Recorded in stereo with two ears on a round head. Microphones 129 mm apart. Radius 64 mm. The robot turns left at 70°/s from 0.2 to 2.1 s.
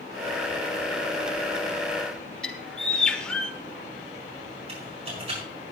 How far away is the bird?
About 1.2 m.